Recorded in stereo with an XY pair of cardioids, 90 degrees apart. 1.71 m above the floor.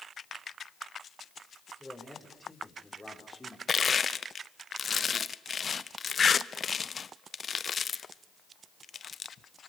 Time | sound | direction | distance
1.8 | a man speaking | 10° left | 7 m
3.7 | crushing | 45° left | 0.9 m